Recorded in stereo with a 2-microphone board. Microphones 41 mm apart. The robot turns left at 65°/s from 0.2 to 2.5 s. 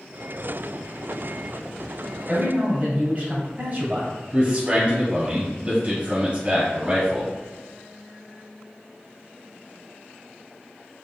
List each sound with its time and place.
2.3 s a man speaking: 40° right (ahead or behind), 1.9 m; by 4.1 s 35° right (ahead or behind), 1.9 m
4.3 s a man speaking: 30° right (ahead or behind), 1.3 m